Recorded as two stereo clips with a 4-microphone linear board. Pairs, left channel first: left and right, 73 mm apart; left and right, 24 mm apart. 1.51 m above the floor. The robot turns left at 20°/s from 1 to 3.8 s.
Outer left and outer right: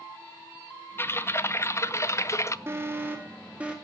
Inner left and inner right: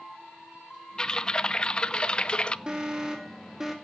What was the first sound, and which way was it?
Typing on a keyboard, 130° left.